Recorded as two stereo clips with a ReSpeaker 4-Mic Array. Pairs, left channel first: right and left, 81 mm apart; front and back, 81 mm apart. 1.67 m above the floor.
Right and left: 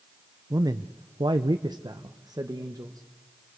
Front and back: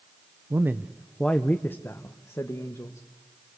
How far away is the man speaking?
About 0.8 m.